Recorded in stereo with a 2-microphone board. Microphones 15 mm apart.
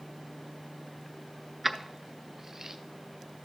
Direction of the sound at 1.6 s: 15° right (ahead or behind).